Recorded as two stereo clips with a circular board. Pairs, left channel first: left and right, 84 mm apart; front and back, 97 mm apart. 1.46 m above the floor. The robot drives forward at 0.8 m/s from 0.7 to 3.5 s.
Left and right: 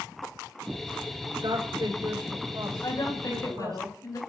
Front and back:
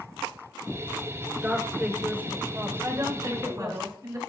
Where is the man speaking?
105° right, 5.5 m; by 3.8 s 120° right, 6 m.